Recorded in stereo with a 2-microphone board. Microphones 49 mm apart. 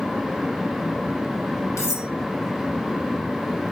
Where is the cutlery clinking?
80° left, 4 m.